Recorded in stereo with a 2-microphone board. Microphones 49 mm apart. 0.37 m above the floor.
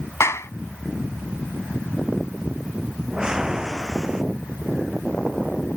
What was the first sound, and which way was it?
A clap, 70° left (ahead or behind).